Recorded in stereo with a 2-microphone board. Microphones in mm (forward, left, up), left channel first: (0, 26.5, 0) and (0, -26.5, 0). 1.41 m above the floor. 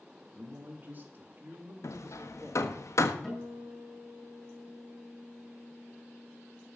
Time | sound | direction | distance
0.3 | a man speaking | 35° right (ahead or behind) | 3 m
1.8 | hammering | 65° left (ahead or behind) | 1.2 m
3.2 | a guitar | 10° left (ahead or behind) | 6.5 m